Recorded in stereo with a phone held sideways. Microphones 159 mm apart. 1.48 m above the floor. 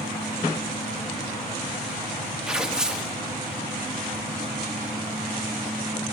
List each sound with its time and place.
2.5 s tearing paper: 5° right (ahead or behind), 1.1 m